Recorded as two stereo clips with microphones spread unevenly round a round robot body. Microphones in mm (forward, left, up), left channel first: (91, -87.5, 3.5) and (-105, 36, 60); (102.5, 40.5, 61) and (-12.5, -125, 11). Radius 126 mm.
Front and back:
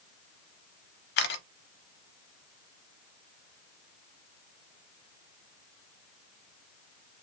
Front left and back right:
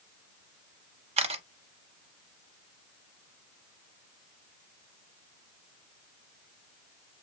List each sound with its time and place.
1.2 s a camera shutter: 65° right, 0.6 m